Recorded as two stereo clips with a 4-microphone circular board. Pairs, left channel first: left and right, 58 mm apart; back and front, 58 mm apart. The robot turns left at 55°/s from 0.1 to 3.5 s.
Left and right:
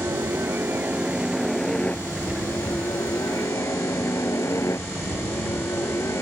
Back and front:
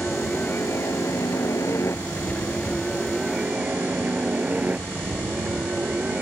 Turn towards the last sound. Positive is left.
turn(degrees=65)